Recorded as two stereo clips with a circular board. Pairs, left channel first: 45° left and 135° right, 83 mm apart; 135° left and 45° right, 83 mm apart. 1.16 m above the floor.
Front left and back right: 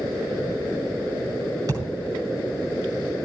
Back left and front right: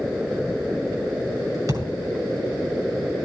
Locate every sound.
1.7 s a thud: 85° right, 6.5 m